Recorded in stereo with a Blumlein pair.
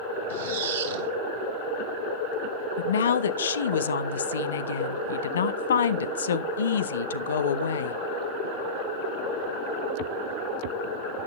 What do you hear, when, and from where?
0.3 s a squeak: 60° right, 3 m
2.8 s a woman speaking: 65° left, 0.7 m